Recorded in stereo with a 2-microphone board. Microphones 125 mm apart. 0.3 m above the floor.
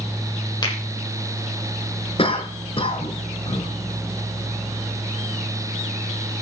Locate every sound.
0.6 s a finger snap: 35° left (ahead or behind), 8 m
2.2 s a cough: 45° left (ahead or behind), 4.5 m